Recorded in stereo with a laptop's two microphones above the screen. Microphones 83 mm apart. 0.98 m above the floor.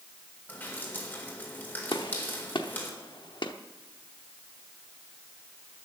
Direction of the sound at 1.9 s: 70° left (ahead or behind).